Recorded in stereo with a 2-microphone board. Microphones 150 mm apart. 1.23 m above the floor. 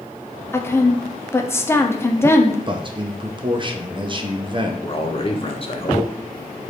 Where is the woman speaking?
15° left (ahead or behind), 0.6 m.